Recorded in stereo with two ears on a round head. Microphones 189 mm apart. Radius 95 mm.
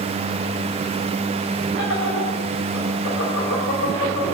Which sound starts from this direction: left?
Laughter, at 1.8 s.